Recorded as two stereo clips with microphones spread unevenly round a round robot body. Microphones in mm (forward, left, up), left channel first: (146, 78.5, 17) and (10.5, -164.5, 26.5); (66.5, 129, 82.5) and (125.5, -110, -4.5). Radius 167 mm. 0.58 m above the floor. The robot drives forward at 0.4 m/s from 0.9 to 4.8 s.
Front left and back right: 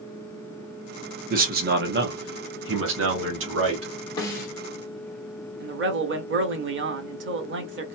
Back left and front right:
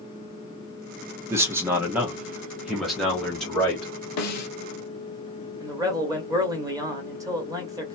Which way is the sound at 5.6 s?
115° right.